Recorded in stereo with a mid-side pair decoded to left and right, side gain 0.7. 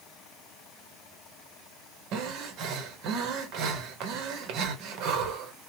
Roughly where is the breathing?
Ahead right.